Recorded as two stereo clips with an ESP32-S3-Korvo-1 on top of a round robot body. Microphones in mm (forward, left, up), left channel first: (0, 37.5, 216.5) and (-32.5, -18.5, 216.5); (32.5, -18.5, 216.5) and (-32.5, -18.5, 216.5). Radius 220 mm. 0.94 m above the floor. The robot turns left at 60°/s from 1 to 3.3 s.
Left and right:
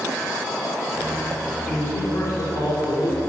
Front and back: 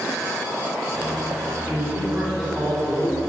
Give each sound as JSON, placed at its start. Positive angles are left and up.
{"t": 1.7, "sound": "a man speaking", "azimuth_deg": 140, "distance_m": 3.5}